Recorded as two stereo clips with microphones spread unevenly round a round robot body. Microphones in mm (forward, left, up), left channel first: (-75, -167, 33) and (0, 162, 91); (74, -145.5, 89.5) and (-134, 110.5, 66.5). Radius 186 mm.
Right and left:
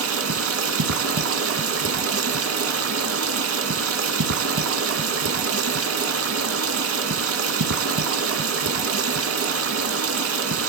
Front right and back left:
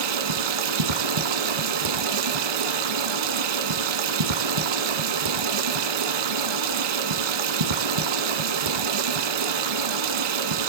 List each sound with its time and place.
0.0 s running water: 120° left, 1.7 m